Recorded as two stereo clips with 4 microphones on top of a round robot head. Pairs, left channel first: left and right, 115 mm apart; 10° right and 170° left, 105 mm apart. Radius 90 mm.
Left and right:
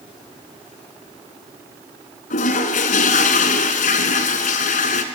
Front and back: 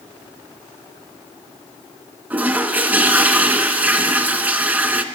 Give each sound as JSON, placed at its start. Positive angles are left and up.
{"t": 2.3, "sound": "a toilet flushing", "azimuth_deg": 95, "distance_m": 0.8}